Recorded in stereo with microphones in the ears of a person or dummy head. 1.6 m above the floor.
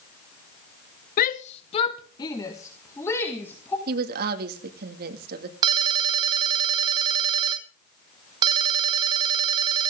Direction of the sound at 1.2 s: 50° left (ahead or behind).